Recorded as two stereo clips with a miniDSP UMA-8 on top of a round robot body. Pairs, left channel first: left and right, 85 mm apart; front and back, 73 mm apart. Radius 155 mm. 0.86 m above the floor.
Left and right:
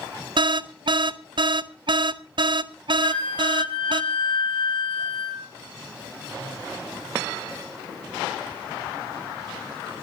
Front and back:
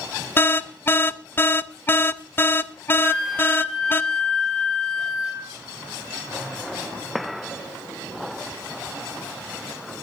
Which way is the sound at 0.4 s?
65° right.